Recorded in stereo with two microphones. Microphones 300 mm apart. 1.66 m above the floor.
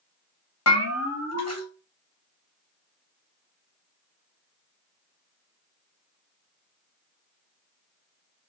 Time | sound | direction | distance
0.7 | a bell | 55° left (ahead or behind) | 0.8 m